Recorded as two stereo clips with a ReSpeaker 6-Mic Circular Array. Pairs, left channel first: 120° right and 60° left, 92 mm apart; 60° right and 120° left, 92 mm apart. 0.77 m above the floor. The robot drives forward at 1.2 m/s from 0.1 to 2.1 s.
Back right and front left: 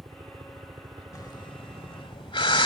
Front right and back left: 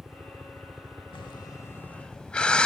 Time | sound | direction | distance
0.0 | a helicopter | 45° left | ?
1.1 | breathing | 75° right | ?